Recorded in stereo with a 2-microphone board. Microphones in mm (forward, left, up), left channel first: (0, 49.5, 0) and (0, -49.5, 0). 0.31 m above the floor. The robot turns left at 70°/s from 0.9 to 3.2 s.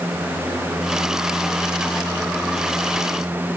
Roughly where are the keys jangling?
No keys jangling in this recording.